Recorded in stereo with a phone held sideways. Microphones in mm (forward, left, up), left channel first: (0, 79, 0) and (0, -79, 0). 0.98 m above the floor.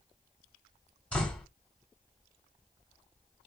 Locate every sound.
1.1 s a door slam: 10° left (ahead or behind), 2 m